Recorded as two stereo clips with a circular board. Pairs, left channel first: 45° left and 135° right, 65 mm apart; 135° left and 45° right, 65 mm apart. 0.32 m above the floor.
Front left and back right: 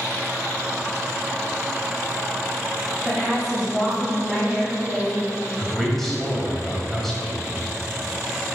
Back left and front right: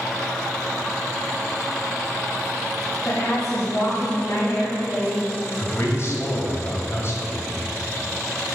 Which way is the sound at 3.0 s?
130° left.